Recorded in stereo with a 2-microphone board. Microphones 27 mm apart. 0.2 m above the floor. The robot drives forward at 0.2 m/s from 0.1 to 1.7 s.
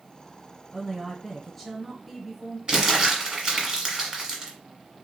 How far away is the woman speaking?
About 1.2 m.